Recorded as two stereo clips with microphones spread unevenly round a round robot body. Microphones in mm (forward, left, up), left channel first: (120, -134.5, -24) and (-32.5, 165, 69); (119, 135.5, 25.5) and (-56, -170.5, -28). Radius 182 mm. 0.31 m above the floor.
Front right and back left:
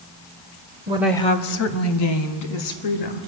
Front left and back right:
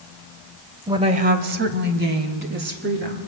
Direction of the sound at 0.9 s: 165° right.